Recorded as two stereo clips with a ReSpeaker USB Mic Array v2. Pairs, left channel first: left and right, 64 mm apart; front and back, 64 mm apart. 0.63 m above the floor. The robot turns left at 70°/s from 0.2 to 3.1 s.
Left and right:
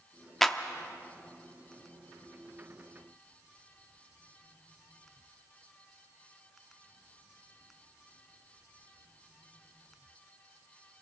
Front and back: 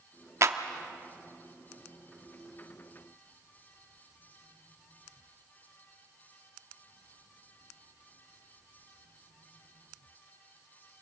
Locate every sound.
0.4 s a clap: 175° left, 0.9 m; by 0.6 s 160° left, 0.9 m